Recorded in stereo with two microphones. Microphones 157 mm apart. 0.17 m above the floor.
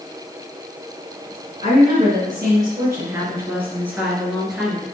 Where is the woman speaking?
35° right (ahead or behind), 2.5 m; by 4.8 s centre (ahead or behind), 3 m.